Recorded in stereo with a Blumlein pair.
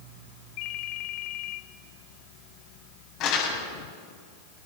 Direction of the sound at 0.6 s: 45° left.